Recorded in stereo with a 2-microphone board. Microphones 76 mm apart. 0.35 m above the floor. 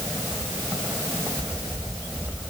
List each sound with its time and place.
Only background noise.